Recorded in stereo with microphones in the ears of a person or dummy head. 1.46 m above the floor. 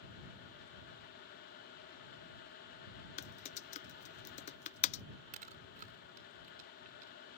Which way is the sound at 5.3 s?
40° right (ahead or behind).